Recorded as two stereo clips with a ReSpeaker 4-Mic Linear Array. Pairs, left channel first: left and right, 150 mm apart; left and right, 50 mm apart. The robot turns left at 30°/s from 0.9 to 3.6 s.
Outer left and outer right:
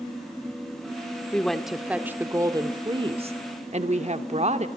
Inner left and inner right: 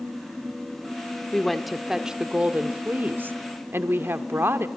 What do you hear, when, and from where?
1.3 s a woman speaking: 10° left, 1.4 m; by 4.7 s 60° right, 1.4 m